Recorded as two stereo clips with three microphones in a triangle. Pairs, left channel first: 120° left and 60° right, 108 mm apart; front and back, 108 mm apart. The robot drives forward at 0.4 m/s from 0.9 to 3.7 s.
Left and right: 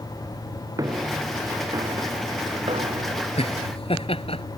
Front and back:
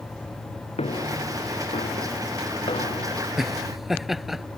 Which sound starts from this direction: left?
Laughter, at 3.4 s.